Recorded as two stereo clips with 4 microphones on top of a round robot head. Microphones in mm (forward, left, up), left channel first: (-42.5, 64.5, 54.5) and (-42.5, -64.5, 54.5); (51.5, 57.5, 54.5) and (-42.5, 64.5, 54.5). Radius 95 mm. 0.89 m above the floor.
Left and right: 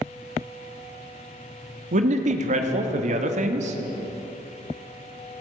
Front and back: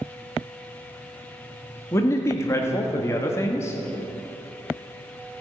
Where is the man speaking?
70° right, 1.5 m.